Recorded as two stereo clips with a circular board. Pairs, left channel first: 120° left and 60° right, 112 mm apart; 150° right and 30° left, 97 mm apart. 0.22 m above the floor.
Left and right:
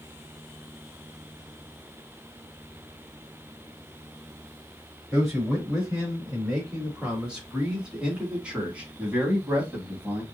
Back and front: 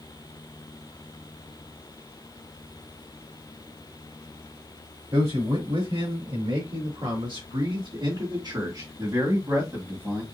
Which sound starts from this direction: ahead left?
A man speaking, at 5.1 s.